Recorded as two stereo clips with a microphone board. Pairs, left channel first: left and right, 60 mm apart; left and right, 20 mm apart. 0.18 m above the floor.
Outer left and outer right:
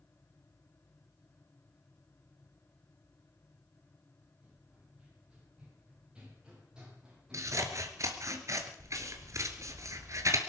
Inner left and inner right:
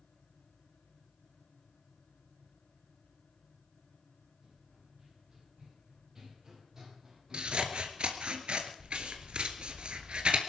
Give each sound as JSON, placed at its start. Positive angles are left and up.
{"t": 4.4, "sound": "running footsteps", "side_deg": -20, "distance_m": 9.5}
{"t": 7.3, "sound": "scissors", "side_deg": -60, "distance_m": 1.9}